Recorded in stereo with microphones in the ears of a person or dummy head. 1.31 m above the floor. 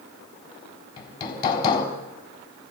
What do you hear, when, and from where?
1.0 s hammering: 35° left (ahead or behind), 3.5 m